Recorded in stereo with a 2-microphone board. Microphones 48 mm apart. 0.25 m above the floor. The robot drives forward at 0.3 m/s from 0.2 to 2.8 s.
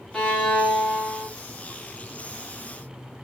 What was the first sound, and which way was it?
A violin, 5° left (ahead or behind).